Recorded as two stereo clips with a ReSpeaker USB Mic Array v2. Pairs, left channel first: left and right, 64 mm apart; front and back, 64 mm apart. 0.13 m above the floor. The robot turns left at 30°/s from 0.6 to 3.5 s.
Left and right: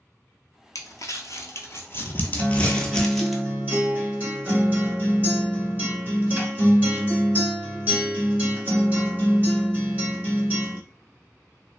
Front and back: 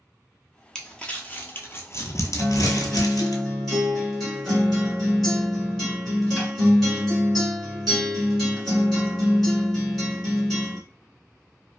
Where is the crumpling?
80° left, 0.6 m; by 3.4 s straight ahead, 0.6 m.